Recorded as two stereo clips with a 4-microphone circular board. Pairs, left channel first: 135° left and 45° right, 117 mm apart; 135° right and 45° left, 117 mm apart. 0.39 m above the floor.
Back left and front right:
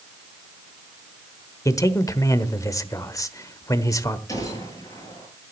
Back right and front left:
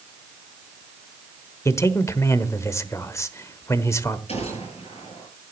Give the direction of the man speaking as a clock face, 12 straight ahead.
6 o'clock.